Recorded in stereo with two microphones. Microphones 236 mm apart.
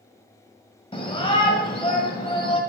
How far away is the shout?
About 1.6 m.